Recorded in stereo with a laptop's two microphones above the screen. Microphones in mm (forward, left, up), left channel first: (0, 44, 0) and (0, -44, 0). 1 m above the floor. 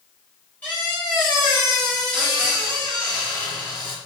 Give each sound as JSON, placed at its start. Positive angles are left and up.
{"t": 0.6, "sound": "a squeak", "side_deg": 20, "distance_m": 2.5}